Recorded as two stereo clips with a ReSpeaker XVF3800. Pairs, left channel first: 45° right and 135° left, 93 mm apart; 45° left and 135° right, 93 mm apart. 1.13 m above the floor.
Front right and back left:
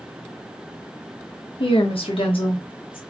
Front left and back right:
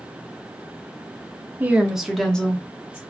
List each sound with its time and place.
1.6 s a woman speaking: 65° right, 0.7 m; by 3.0 s 25° right, 1.1 m